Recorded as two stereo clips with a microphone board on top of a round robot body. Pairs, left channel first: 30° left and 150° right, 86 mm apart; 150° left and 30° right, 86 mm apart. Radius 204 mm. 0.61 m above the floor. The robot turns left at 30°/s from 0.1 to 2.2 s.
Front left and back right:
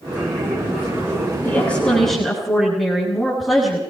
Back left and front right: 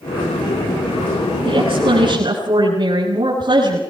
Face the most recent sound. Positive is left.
turn(degrees=-60)